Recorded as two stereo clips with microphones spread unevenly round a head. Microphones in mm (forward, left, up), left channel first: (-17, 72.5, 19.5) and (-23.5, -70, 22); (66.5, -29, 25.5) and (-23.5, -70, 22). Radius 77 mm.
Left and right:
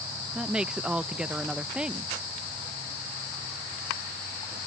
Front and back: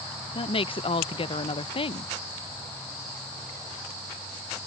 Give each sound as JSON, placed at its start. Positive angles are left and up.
{"t": 0.3, "sound": "a woman speaking", "azimuth_deg": -10}